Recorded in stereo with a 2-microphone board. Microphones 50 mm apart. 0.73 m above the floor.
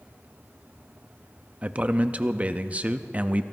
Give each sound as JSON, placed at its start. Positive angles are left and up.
{"t": 1.6, "sound": "a man speaking", "side_deg": -30, "distance_m": 0.5}